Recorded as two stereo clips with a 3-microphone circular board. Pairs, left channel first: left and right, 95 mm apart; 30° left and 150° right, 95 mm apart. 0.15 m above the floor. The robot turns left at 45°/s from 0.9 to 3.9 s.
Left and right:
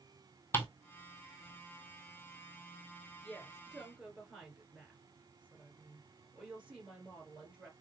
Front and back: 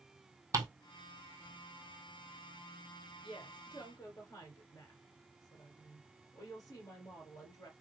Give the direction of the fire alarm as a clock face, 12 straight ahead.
No fire alarm in this recording.